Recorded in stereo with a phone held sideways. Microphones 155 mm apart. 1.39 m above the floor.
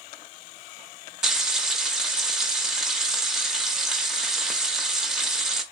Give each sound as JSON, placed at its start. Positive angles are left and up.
{"t": 1.2, "sound": "frying", "side_deg": -5, "distance_m": 0.9}